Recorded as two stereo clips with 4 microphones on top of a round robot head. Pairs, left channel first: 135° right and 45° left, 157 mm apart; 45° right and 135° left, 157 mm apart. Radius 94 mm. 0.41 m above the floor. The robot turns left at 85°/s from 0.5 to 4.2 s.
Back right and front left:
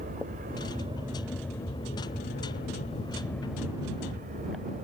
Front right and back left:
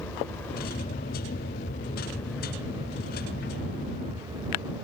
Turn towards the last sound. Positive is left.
turn(degrees=70)